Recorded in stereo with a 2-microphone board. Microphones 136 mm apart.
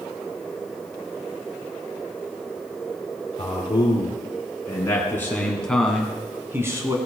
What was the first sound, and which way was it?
A man speaking, 40° left (ahead or behind).